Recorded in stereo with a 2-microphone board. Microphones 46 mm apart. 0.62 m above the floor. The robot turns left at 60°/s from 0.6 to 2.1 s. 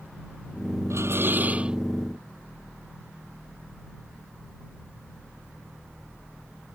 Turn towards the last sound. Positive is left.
turn(degrees=175)